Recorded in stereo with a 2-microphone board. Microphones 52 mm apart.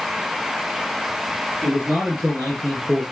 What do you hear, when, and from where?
1.6 s a man speaking: 10° right (ahead or behind), 4 m; by 3.0 s 10° left (ahead or behind), 2.5 m